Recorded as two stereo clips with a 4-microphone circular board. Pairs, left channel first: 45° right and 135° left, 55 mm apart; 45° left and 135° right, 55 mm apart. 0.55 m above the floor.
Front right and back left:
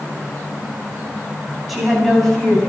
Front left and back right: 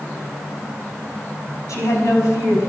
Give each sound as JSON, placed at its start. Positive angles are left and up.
{"t": 1.7, "sound": "a woman speaking", "azimuth_deg": 50, "distance_m": 4.5}